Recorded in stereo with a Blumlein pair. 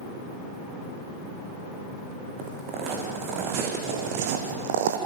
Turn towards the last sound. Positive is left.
turn(degrees=-55)